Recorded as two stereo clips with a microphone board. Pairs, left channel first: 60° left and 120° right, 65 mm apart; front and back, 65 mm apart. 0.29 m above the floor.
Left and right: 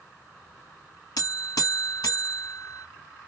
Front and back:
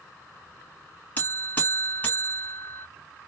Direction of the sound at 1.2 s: 65° left.